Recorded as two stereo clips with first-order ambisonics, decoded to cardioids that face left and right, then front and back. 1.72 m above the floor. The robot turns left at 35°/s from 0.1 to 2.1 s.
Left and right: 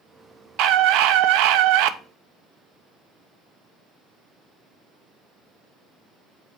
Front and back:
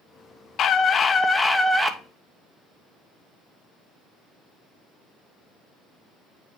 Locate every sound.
0.6 s a scream: 55° right, 1.1 m; by 2.0 s 105° right, 1.1 m